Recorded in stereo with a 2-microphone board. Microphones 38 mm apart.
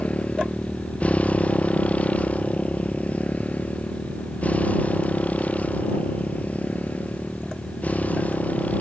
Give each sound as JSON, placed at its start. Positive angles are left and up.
{"t": 0.0, "sound": "a motorcycle", "side_deg": 35}